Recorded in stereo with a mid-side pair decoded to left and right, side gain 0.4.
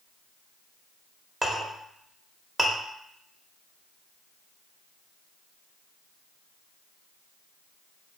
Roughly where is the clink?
Ahead.